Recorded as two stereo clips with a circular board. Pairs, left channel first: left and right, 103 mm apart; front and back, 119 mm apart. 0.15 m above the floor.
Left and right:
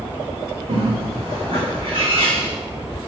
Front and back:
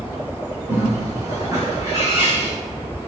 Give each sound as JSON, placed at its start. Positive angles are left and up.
{"t": 0.7, "sound": "a bird", "azimuth_deg": -120, "distance_m": 5.5}